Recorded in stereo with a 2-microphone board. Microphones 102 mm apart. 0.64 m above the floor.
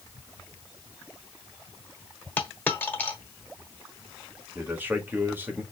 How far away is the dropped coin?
About 0.9 m.